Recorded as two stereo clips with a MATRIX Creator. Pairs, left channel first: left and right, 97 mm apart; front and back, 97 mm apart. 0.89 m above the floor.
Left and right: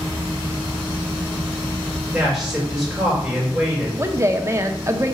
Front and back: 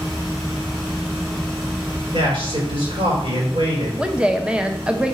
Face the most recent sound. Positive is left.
turn(degrees=-110)